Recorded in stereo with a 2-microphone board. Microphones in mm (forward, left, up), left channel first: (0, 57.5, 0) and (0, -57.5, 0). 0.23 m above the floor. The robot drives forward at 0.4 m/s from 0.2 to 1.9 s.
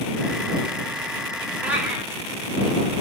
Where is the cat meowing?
15° right (ahead or behind), 2.5 m.